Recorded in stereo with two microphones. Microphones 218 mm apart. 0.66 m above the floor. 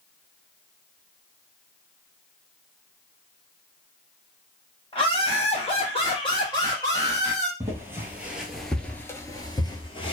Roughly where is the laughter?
Left.